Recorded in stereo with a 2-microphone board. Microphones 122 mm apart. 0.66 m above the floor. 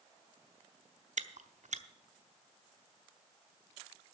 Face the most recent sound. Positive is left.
turn(degrees=-75)  # may be behind; listen again after turning